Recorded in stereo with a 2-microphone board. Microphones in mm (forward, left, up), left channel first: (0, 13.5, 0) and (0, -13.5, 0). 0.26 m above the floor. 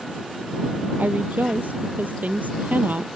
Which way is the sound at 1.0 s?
80° right.